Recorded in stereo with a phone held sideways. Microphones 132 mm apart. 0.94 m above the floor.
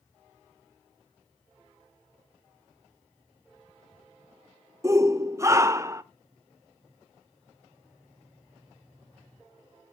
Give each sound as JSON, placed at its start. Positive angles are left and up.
{"t": 4.8, "sound": "a shout", "side_deg": -25, "distance_m": 0.5}